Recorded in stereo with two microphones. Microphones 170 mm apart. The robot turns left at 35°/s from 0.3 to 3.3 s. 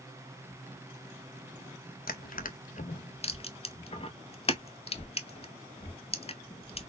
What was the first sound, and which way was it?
Crushing, 60° left (ahead or behind).